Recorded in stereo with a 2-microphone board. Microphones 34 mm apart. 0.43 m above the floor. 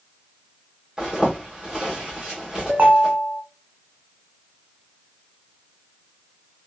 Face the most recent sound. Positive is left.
turn(degrees=-50)  # may be behind; listen again after turning